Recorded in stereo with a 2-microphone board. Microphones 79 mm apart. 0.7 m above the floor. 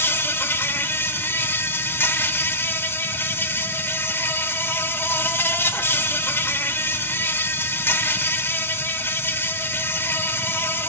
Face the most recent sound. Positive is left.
turn(degrees=25)  # may be behind; listen again after turning